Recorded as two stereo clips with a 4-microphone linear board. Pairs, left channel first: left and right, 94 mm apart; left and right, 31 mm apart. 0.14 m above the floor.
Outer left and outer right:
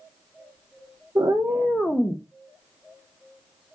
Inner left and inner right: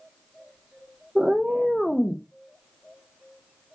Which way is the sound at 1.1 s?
40° right (ahead or behind).